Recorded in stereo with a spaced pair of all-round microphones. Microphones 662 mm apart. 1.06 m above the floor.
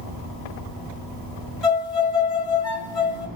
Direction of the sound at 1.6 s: 55° right (ahead or behind).